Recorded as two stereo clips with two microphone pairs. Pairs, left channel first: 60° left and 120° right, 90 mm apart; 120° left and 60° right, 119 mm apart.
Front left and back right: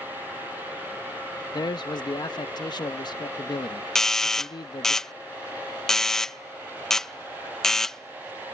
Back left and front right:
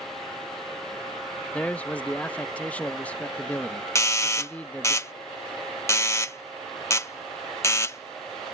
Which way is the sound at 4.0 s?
135° left.